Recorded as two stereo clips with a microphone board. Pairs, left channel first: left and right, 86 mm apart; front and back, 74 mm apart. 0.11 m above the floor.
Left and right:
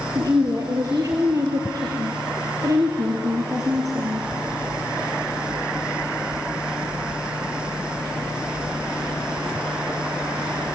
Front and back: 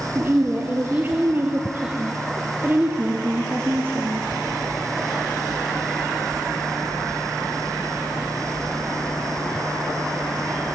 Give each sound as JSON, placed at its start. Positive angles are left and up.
{"t": 0.1, "sound": "a woman speaking", "azimuth_deg": -125, "distance_m": 2.5}